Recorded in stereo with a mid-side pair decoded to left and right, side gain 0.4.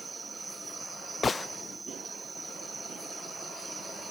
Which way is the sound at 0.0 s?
25° right.